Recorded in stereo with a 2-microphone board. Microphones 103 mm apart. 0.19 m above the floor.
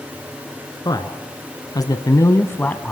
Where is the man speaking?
40° left (ahead or behind), 2 m; by 2.9 s 10° left (ahead or behind), 1.4 m.